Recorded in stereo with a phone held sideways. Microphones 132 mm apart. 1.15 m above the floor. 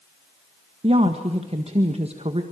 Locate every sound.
0.8 s a woman speaking: 50° right (ahead or behind), 1.5 m